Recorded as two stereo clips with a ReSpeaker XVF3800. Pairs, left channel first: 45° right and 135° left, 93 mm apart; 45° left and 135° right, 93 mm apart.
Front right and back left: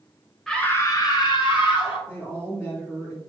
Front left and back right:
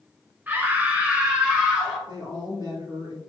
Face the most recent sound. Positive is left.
turn(degrees=-110)